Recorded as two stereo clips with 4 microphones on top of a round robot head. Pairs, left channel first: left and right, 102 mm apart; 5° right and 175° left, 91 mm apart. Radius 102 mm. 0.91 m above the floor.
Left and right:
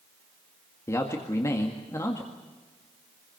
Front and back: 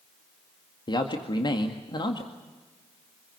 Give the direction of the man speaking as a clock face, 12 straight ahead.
11 o'clock.